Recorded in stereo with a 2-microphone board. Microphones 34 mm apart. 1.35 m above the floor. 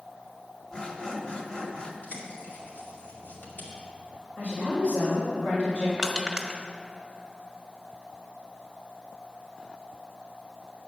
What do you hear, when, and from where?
0.7 s sawing: 25° left (ahead or behind), 1.1 m
2.0 s a bird: 65° left (ahead or behind), 2.5 m
4.4 s a woman speaking: 25° left (ahead or behind), 4 m
6.0 s crushing: 20° right (ahead or behind), 1.1 m